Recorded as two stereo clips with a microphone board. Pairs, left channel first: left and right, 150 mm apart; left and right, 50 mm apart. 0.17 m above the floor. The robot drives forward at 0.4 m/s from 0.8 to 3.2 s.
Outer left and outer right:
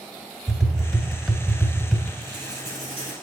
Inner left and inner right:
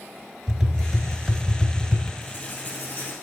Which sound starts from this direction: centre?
Tapping, at 0.5 s.